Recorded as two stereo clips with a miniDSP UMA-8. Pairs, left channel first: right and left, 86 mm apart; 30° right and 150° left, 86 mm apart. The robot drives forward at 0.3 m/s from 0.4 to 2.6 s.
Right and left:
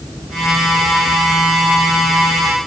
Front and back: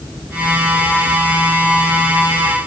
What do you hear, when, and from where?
Only background noise.